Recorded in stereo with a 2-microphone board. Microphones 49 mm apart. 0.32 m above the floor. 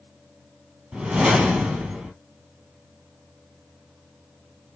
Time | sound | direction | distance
0.9 | a whoosh | 15° right (ahead or behind) | 1.9 m